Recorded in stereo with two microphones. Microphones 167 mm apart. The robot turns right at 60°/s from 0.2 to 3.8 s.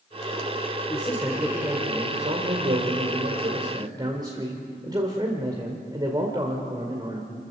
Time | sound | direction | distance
0.9 | a man speaking | 155° left | 2 m